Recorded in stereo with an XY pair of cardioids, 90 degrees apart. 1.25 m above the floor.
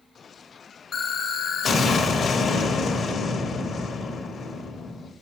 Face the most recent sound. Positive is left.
turn(degrees=65)